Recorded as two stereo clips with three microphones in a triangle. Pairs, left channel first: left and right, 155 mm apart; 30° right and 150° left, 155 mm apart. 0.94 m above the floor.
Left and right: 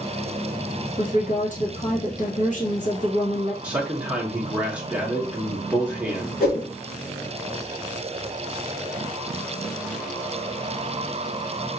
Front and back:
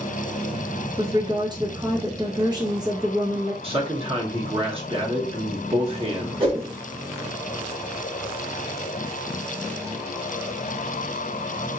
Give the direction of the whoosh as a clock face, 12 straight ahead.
9 o'clock.